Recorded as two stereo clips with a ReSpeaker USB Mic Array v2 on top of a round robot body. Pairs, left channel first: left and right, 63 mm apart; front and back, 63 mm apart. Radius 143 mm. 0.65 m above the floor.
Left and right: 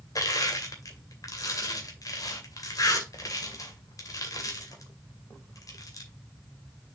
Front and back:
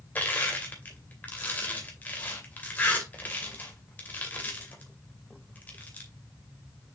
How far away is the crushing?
About 2.5 m.